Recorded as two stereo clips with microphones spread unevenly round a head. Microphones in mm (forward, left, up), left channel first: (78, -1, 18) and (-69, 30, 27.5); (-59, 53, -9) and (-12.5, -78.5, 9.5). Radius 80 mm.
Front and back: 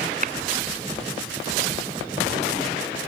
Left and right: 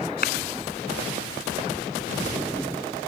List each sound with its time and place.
0.2 s a clap: 125° left